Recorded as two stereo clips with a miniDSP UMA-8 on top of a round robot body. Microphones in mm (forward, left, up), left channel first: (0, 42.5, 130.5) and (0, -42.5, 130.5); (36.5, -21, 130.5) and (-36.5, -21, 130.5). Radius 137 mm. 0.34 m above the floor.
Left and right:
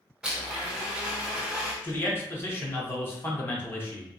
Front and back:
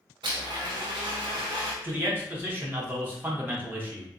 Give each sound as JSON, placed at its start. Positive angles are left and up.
{"t": 0.2, "sound": "a blender", "azimuth_deg": -170, "distance_m": 0.7}
{"t": 1.8, "sound": "a man speaking", "azimuth_deg": 135, "distance_m": 1.2}